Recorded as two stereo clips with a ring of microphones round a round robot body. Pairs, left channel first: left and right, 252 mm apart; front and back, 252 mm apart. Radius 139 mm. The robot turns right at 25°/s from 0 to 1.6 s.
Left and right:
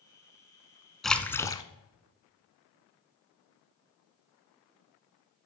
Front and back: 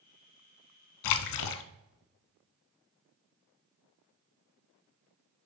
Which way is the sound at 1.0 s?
Straight ahead.